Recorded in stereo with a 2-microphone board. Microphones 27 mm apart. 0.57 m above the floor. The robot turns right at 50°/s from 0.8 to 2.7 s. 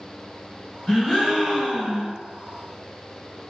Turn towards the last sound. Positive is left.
turn(degrees=-105)